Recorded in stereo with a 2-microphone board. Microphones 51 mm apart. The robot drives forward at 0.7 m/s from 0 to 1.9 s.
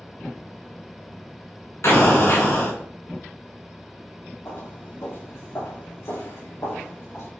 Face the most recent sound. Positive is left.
turn(degrees=65)  # may be behind; listen again after turning